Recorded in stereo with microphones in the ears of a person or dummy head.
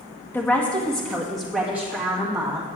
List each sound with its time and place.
0.3 s a woman speaking: 10° left (ahead or behind), 1.0 m; by 2.7 s 10° right (ahead or behind), 2.5 m